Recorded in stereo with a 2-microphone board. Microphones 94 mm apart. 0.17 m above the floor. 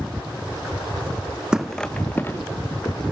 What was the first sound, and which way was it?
Footsteps, 10° right (ahead or behind).